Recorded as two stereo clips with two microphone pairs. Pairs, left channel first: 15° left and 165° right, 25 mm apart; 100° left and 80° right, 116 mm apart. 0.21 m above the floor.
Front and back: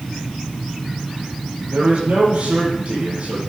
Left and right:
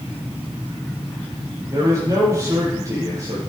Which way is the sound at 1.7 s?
140° right.